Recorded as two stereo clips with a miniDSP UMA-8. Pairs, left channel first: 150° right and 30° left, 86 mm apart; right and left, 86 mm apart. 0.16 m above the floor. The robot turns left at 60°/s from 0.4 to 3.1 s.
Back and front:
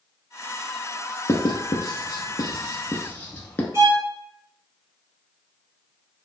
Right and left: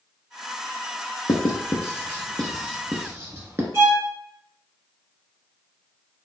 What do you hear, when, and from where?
1.3 s writing: 110° right, 0.7 m; by 3.6 s 145° left, 0.7 m
3.7 s a violin: 60° left, 1.8 m